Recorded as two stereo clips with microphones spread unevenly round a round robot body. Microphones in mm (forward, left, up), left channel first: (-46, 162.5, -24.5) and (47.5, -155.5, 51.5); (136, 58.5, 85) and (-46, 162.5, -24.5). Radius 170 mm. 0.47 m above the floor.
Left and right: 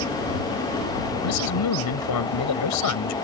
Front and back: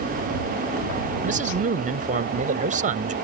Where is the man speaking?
125° left.